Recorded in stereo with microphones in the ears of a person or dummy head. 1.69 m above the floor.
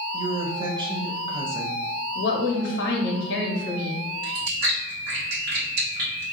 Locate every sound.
0.1 s a woman speaking: 25° right (ahead or behind), 0.7 m
2.1 s a woman speaking: 75° left (ahead or behind), 1.0 m
4.2 s chewing: 60° right (ahead or behind), 1.1 m